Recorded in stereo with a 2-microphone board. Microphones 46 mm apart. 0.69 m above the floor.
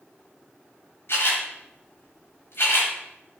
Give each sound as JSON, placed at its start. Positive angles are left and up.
{"t": 1.1, "sound": "a camera shutter", "side_deg": 60, "distance_m": 4.0}